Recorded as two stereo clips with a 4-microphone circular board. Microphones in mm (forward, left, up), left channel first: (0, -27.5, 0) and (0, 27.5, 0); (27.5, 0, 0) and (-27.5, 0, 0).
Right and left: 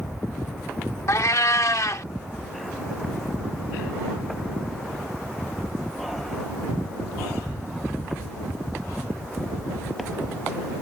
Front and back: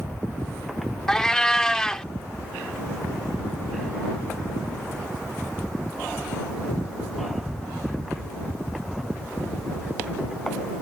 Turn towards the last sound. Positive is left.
turn(degrees=-80)